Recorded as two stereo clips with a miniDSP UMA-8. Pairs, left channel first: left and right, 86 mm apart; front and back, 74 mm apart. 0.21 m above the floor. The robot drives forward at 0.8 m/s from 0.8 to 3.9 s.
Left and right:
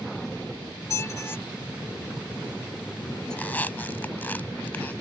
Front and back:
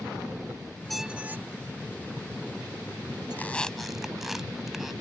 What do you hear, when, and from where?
0.9 s a squeak: 85° left; by 3.4 s 170° left
3.3 s a squeak: 35° left; by 4.9 s 100° left